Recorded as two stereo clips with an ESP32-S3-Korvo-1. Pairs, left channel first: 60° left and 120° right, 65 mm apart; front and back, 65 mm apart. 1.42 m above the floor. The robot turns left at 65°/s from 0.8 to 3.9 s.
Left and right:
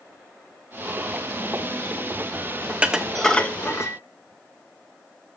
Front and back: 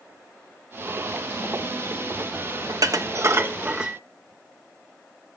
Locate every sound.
2.7 s dishes clattering: straight behind, 1.0 m; by 4.0 s 100° left, 1.0 m